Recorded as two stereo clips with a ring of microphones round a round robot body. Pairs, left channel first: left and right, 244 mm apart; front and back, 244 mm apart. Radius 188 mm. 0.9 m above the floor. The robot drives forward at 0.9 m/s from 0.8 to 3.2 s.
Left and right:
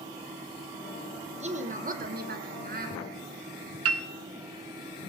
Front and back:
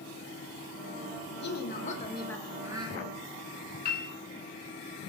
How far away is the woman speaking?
About 1.4 m.